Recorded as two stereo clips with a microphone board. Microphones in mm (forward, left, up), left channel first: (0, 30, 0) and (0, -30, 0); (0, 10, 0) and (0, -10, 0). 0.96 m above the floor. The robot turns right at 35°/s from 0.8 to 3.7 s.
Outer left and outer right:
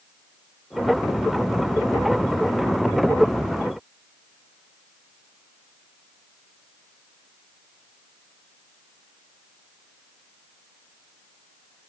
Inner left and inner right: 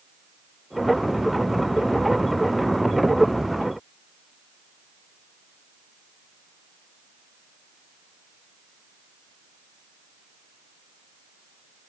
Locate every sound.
Only background noise.